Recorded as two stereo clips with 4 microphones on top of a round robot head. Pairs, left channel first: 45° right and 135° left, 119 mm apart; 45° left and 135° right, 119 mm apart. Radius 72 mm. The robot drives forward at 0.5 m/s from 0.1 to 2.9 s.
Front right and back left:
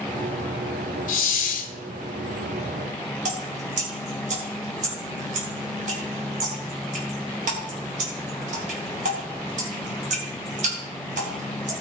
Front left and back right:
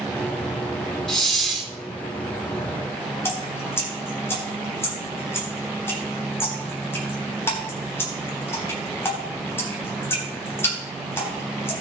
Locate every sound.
1.1 s a hiss: 40° right, 1.6 m; by 1.7 s 50° right, 1.4 m
3.2 s dripping: 115° left, 3 m